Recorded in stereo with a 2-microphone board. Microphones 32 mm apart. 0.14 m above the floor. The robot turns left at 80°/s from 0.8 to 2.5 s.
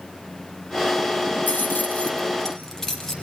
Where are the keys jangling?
70° left (ahead or behind), 3 m; by 3.1 s 15° left (ahead or behind), 3 m.